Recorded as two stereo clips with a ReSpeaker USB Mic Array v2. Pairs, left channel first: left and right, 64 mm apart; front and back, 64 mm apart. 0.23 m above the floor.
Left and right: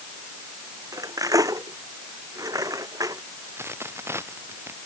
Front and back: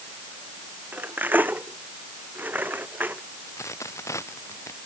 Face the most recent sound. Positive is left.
turn(degrees=-40)